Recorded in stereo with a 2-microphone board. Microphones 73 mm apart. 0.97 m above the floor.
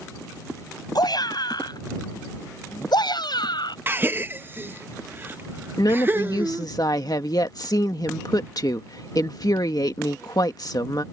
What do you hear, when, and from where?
0.9 s a shout: 70° left (ahead or behind); by 3.8 s 80° left
3.9 s a gasp: 30° right (ahead or behind)
5.8 s a woman speaking: 60° left (ahead or behind)